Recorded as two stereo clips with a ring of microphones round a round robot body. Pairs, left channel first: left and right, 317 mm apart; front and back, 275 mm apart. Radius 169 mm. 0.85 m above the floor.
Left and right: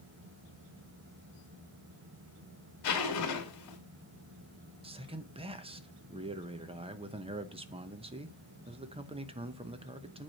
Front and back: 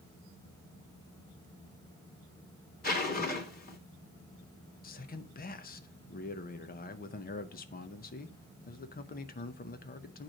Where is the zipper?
60° left, 2.5 m.